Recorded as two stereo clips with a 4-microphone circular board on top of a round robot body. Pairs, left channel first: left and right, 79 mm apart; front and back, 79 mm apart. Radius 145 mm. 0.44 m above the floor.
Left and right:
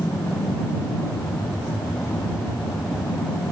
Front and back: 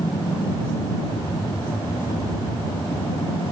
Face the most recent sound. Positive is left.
turn(degrees=35)